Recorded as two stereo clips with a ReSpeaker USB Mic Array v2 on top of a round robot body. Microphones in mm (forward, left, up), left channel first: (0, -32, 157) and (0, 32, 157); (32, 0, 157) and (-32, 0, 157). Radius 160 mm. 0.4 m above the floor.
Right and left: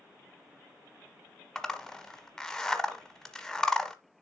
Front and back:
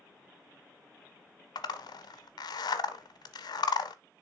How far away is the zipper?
About 0.8 m.